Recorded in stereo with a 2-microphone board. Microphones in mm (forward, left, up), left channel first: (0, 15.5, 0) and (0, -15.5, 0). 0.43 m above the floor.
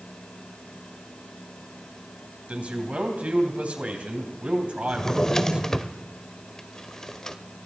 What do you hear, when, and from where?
2.5 s a man speaking: 45° right (ahead or behind), 3 m
4.9 s a drawer: 15° left (ahead or behind), 0.8 m